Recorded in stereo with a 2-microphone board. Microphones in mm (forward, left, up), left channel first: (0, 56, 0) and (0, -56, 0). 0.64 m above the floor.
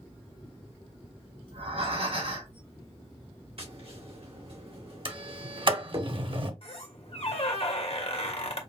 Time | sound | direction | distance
1.5 | breathing | 70° right (ahead or behind) | 2.5 m
3.6 | tapping | 60° right (ahead or behind) | 2 m
5.0 | a sliding door | 50° right (ahead or behind) | 0.7 m
6.6 | a squeak | 60° left (ahead or behind) | 1.0 m